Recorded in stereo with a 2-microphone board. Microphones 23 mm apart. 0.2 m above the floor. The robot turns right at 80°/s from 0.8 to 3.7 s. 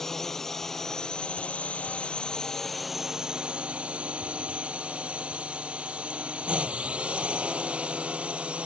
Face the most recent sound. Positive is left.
turn(degrees=-105)